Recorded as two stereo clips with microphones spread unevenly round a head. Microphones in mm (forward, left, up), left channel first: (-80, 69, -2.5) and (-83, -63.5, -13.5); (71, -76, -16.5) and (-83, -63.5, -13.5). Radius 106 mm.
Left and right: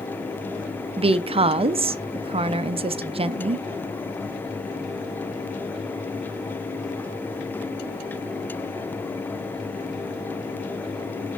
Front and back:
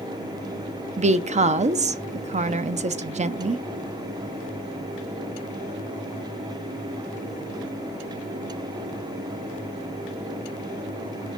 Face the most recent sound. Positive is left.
turn(degrees=-140)